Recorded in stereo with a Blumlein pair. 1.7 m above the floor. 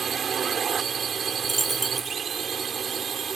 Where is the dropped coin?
10° right.